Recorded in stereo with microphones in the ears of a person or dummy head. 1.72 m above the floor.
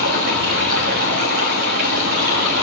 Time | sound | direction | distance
0.0 | running water | 45° right (ahead or behind) | 1.5 m